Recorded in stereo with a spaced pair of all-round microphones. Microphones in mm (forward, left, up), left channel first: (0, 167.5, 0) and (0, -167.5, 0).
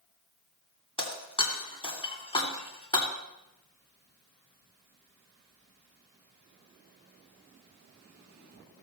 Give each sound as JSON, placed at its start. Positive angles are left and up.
{"t": 1.0, "sound": "breaking glass", "side_deg": 15, "distance_m": 2.0}